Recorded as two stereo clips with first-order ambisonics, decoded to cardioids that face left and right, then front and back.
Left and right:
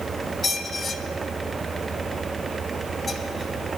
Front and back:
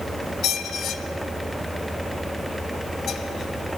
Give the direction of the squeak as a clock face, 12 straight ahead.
11 o'clock.